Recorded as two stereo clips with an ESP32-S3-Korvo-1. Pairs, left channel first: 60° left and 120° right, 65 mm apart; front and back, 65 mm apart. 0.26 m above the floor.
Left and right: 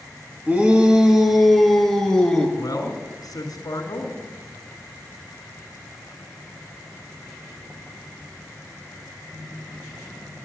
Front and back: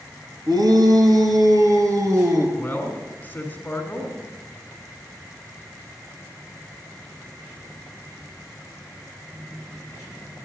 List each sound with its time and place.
0.5 s a shout: 175° left, 2 m; by 2.5 s 135° left, 2.5 m
2.6 s a man speaking: 60° left, 2 m